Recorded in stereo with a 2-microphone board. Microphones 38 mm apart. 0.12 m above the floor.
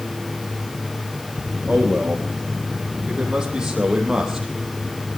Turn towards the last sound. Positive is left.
turn(degrees=-15)  # may be behind; listen again after turning